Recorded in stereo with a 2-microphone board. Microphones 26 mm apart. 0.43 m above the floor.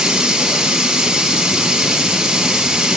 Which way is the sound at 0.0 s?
25° right (ahead or behind).